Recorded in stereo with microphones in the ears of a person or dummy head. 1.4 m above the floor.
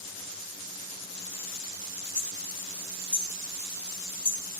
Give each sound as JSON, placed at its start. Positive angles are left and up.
{"t": 2.1, "sound": "hammering", "side_deg": 10, "distance_m": 2.5}